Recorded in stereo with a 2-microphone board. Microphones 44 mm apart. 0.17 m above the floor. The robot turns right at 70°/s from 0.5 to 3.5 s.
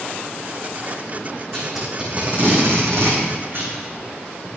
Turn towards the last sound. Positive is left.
turn(degrees=-55)  # may be behind; listen again after turning